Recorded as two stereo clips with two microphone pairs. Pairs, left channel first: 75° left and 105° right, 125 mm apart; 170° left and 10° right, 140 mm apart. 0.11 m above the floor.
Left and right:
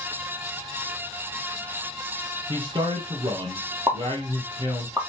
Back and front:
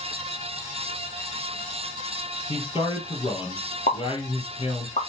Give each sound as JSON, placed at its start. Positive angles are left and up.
{"t": 2.5, "sound": "a man speaking", "azimuth_deg": -150, "distance_m": 3.0}
{"t": 3.9, "sound": "a pop", "azimuth_deg": -170, "distance_m": 3.5}